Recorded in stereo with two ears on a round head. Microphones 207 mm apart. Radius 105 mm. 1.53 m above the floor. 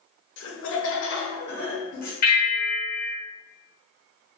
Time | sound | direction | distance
0.4 | laughter | 55° left (ahead or behind) | 0.6 m
2.2 | a bell | 45° left (ahead or behind) | 0.9 m